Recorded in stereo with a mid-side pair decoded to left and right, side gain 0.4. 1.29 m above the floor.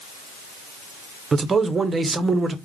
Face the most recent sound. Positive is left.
turn(degrees=-40)